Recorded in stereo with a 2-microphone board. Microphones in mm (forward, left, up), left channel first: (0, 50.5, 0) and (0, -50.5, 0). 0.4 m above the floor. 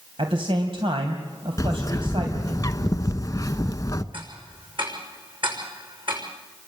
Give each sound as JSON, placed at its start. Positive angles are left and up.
{"t": 0.2, "sound": "a man speaking", "side_deg": -60, "distance_m": 2.5}
{"t": 1.6, "sound": "a bird", "side_deg": 35, "distance_m": 0.8}
{"t": 4.1, "sound": "ticking", "side_deg": -55, "distance_m": 6.0}